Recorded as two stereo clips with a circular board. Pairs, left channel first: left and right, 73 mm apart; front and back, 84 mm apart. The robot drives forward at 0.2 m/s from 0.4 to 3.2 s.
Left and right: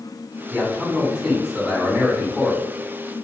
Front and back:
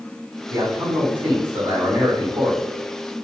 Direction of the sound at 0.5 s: 155° right.